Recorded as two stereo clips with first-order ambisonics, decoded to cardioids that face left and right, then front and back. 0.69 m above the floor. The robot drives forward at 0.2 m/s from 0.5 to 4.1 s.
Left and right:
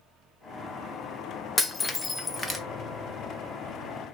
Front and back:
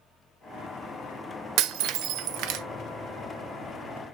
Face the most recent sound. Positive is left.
turn(degrees=170)